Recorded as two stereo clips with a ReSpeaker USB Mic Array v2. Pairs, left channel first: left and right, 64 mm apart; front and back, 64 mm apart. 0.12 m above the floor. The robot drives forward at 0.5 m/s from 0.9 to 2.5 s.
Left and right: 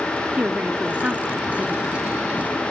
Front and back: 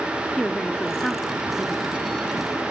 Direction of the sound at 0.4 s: 55° right.